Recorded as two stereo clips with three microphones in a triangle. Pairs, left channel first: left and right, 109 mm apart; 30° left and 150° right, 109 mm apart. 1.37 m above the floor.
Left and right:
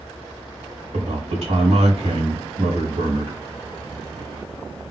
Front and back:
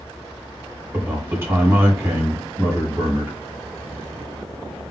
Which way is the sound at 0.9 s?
80° right.